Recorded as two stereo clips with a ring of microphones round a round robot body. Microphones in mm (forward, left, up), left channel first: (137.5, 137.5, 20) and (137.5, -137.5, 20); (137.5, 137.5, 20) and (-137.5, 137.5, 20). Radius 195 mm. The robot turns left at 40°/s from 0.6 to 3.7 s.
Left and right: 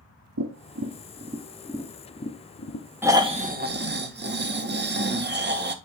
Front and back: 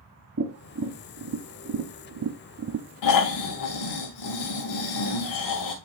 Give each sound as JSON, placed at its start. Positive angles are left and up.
{"t": 0.4, "sound": "tapping", "azimuth_deg": -135, "distance_m": 0.6}
{"t": 3.0, "sound": "snoring", "azimuth_deg": -5, "distance_m": 1.2}